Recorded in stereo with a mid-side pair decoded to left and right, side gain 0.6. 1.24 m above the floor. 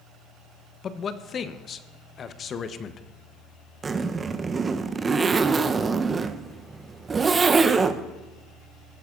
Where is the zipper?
25° right, 0.6 m.